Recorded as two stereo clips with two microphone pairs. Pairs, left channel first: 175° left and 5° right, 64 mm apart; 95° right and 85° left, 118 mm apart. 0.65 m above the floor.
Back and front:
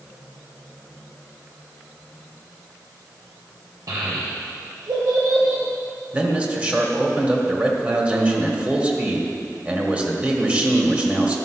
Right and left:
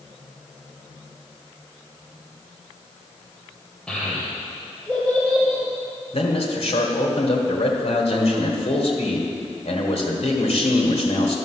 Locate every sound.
3.9 s a child speaking: 15° right, 1.5 m
6.1 s a man speaking: 75° right, 1.8 m